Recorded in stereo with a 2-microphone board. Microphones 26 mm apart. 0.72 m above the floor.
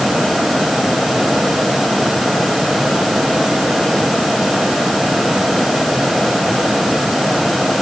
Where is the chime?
I don't hear a chime.